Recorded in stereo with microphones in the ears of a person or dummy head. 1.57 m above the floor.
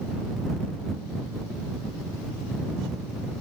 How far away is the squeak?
No squeak in this recording.